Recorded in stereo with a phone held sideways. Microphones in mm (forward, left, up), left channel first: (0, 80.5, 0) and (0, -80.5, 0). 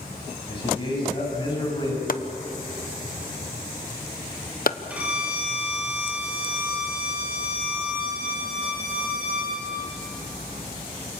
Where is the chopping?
60° left (ahead or behind), 0.9 m.